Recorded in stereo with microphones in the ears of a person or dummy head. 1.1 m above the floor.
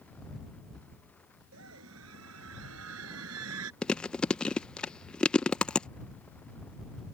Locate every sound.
1.5 s a scream: 80° right; by 3.7 s 85° right
3.8 s chewing: 10° left (ahead or behind)